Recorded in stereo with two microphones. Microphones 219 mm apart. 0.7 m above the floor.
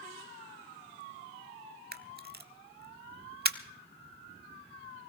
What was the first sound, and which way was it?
A camera shutter, 45° right (ahead or behind).